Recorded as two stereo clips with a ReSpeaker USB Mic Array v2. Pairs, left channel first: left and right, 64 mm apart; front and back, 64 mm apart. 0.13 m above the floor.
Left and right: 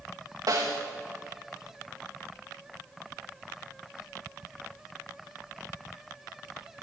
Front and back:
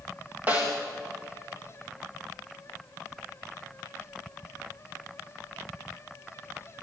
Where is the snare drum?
115° right, 5 m.